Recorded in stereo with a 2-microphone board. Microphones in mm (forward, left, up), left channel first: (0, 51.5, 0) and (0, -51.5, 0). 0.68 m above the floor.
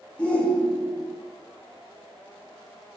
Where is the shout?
15° left (ahead or behind), 0.7 m.